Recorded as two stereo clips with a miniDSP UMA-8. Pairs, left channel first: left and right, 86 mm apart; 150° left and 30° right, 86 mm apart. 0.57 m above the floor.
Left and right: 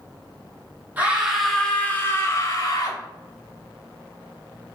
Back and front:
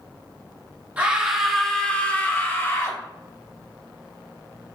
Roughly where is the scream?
Right.